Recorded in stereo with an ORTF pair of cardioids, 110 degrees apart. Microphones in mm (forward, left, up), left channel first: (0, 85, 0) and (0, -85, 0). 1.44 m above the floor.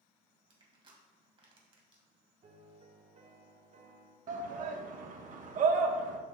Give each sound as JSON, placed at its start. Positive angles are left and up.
{"t": 0.5, "sound": "crushing", "azimuth_deg": -35, "distance_m": 2.0}
{"t": 2.4, "sound": "a piano", "azimuth_deg": -45, "distance_m": 1.2}
{"t": 4.3, "sound": "a shout", "azimuth_deg": -55, "distance_m": 1.2}